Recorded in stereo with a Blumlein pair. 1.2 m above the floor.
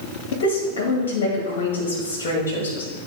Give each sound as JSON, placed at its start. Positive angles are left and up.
{"t": 0.3, "sound": "a woman speaking", "azimuth_deg": 55, "distance_m": 2.0}